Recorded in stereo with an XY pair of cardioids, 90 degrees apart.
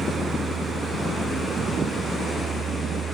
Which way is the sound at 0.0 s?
55° right.